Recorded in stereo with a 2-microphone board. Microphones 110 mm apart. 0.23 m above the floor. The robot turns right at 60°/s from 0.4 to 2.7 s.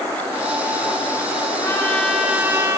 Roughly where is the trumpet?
Behind left.